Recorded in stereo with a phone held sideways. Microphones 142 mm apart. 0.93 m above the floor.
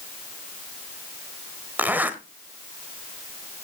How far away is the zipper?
About 1.2 m.